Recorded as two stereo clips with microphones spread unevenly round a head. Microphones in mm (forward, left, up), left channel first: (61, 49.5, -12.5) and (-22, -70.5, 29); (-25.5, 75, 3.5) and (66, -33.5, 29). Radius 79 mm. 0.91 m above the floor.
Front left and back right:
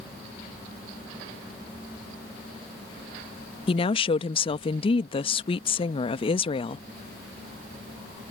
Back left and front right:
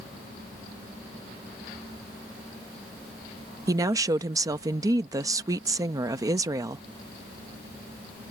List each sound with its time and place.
3.7 s a woman speaking: 20° left